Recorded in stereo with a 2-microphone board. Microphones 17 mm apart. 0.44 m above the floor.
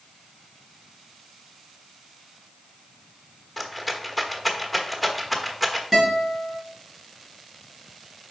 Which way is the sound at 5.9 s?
15° right (ahead or behind).